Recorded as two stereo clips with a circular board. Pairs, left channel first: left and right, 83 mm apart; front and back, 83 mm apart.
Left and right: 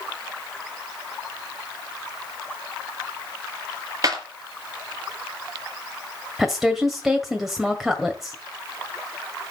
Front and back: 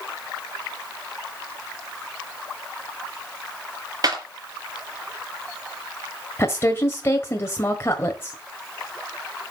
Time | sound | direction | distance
4.0 | a clap | 135° right | 4.5 m
6.4 | a woman speaking | 10° right | 1.6 m